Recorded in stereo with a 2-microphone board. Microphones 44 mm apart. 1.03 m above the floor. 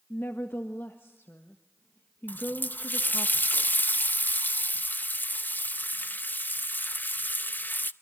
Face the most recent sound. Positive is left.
turn(degrees=45)  # may be behind; listen again after turning